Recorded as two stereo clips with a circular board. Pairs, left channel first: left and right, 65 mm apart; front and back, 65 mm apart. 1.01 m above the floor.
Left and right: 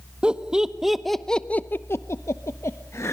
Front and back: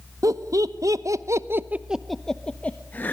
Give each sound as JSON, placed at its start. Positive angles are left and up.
{"t": 0.2, "sound": "laughter", "azimuth_deg": -160, "distance_m": 1.5}